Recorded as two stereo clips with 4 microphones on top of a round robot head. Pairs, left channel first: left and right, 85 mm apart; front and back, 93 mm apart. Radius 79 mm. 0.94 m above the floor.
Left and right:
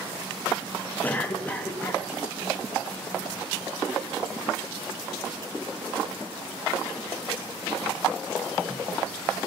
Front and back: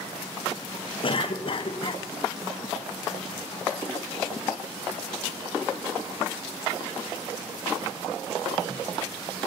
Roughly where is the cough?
Ahead.